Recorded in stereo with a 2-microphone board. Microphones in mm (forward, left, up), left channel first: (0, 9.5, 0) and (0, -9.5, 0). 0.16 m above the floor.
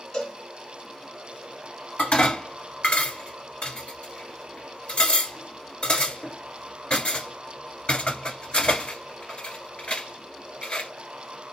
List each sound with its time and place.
0.1 s a cowbell: 40° left (ahead or behind), 1.8 m
2.0 s dishes clattering: 55° left (ahead or behind), 1.5 m